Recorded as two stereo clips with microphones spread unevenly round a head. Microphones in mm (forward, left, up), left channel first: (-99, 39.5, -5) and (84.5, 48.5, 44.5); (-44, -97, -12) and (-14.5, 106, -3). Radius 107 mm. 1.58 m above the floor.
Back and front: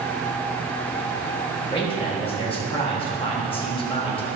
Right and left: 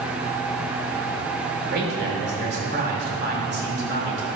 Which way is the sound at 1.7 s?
120° left.